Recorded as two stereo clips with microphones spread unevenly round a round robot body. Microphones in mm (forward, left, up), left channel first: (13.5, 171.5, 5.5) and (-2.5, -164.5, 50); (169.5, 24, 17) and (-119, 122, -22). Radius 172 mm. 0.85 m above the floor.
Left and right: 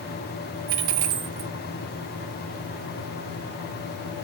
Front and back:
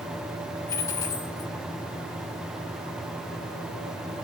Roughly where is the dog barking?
I don't hear a dog barking.